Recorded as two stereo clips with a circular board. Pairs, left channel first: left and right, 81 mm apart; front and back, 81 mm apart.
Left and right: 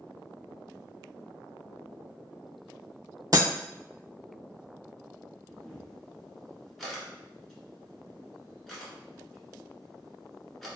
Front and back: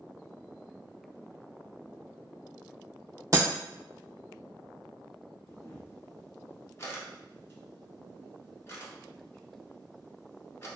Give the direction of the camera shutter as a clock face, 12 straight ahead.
12 o'clock.